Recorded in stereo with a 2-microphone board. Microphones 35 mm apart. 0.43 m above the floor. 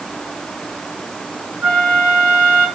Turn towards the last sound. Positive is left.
turn(degrees=-60)  # may be behind; listen again after turning